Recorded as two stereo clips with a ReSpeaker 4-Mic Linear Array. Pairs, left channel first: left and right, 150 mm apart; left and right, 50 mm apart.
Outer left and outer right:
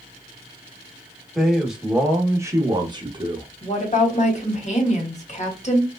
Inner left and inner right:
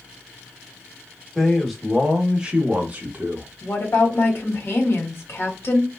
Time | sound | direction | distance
1.4 | a man speaking | centre (ahead or behind) | 1.0 m
3.6 | a woman speaking | 50° left (ahead or behind) | 1.3 m